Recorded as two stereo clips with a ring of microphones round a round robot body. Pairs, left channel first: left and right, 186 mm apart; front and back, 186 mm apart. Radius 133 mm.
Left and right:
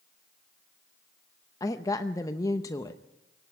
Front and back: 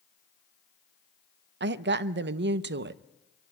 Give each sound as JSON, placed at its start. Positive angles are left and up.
{"t": 1.6, "sound": "a woman speaking", "azimuth_deg": 165, "distance_m": 0.7}